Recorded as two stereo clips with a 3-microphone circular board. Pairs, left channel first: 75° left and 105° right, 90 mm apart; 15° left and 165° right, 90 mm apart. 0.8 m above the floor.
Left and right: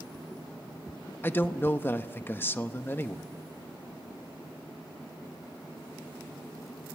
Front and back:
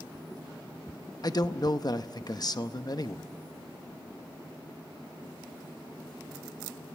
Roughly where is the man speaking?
Ahead.